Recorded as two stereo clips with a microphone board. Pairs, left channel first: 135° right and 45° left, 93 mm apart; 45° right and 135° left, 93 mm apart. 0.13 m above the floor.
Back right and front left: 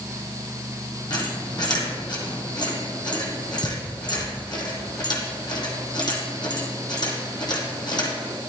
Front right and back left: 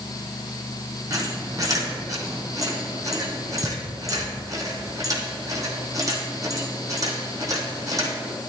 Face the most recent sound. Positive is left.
turn(degrees=-175)